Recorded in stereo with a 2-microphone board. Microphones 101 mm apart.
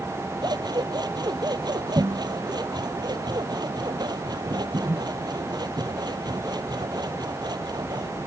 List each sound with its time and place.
0.4 s scissors: 45° right (ahead or behind)